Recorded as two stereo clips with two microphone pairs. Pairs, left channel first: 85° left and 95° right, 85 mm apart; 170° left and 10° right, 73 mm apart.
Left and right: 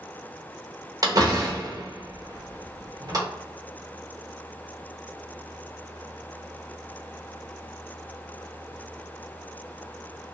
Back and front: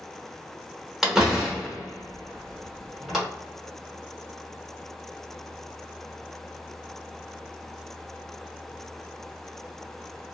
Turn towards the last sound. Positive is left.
turn(degrees=-90)